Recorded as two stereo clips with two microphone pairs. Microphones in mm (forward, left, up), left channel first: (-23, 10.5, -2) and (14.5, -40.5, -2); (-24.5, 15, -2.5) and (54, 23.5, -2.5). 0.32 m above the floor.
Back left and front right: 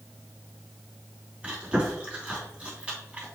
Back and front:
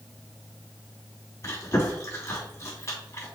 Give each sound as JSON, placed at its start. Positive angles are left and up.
{"t": 1.4, "sound": "chewing", "azimuth_deg": -125, "distance_m": 3.0}